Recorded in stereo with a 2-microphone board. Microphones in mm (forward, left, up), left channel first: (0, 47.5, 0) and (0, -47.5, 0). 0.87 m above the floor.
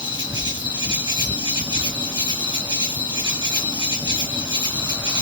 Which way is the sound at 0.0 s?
55° right (ahead or behind).